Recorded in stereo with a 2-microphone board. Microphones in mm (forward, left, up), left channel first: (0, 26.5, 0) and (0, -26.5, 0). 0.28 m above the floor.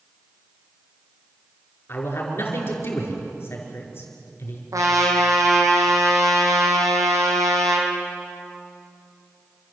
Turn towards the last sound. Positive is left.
turn(degrees=-85)